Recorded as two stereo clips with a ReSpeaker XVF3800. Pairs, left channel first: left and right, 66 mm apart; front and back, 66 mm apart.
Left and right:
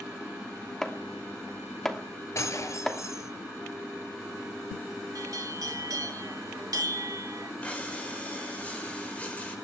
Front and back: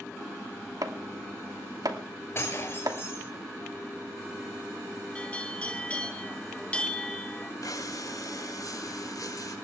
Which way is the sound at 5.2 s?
70° right.